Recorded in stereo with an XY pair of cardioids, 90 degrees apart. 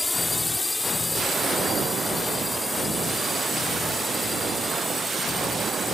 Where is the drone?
20° left.